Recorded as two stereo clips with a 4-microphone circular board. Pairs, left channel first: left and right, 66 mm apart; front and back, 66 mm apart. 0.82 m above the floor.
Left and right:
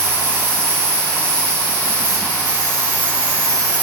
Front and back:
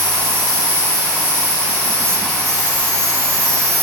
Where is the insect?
155° left, 10 m.